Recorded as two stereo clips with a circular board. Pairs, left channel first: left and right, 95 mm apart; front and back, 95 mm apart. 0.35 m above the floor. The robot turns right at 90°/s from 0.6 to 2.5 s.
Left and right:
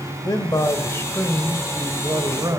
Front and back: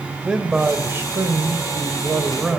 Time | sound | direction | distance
0.2 | a man speaking | 100° left | 1.3 m